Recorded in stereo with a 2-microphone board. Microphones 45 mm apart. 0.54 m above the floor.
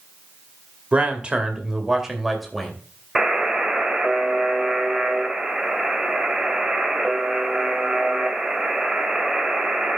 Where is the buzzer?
10° right (ahead or behind), 2.5 m.